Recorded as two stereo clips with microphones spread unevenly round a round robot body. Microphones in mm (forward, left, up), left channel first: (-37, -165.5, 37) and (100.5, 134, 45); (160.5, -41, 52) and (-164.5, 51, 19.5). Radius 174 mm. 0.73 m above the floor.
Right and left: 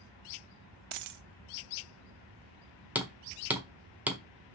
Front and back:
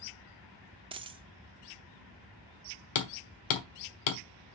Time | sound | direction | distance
0.9 | a dropped coin | 90° left | 0.7 m
3.0 | hammering | 20° right | 1.4 m